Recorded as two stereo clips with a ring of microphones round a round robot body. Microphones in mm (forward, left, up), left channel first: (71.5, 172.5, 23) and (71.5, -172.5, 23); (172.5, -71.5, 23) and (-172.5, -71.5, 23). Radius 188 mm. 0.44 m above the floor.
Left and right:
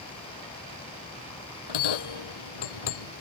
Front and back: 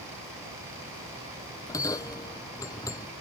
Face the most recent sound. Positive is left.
turn(degrees=80)